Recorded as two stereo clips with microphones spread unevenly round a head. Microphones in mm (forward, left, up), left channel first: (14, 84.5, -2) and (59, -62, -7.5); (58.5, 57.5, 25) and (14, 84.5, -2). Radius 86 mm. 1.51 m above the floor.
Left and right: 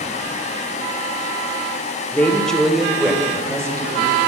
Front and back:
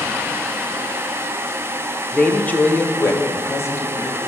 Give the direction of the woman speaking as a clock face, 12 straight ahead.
11 o'clock.